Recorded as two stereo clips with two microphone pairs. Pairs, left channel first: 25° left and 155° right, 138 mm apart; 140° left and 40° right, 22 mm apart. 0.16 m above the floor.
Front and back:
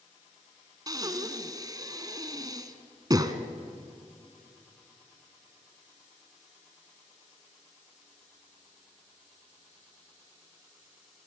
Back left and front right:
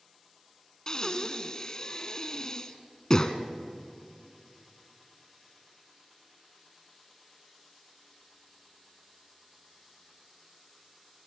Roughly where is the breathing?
Behind.